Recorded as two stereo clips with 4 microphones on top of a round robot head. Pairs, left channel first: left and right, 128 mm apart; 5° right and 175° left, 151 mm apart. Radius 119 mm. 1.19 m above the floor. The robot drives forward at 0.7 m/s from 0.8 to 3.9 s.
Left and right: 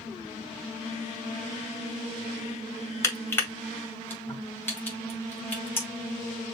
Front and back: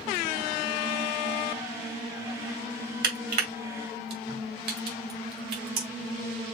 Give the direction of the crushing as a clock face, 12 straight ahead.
7 o'clock.